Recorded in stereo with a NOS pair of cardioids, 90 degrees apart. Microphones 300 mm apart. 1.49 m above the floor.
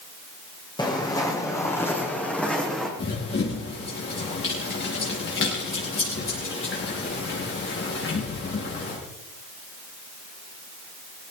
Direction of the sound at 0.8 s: 15° left.